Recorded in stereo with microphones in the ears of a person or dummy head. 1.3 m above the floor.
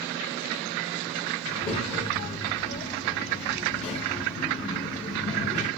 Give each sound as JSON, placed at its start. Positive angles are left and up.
{"t": 1.4, "sound": "a child speaking", "side_deg": 30, "distance_m": 1.4}